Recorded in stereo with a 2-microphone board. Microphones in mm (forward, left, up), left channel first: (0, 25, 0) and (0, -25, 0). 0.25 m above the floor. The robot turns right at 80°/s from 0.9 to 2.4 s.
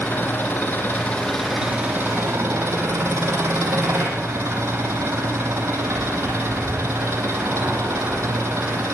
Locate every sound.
0.0 s an engine running: 140° left, 6.5 m; by 8.9 s 100° right, 6.5 m